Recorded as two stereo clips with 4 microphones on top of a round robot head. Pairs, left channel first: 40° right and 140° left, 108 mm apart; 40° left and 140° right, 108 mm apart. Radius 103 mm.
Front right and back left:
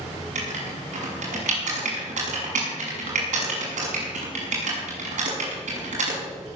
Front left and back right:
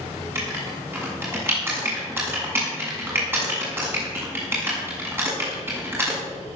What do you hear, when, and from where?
0.3 s writing: 150° left, 6.5 m